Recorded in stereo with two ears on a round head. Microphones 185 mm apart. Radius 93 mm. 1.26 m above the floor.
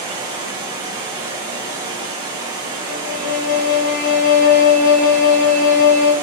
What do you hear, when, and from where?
0.0 s running water: 20° right (ahead or behind), 0.9 m
2.8 s a violin: 45° left (ahead or behind), 1.6 m